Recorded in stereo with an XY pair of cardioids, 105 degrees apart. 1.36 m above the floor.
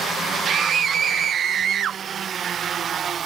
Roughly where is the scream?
Ahead right.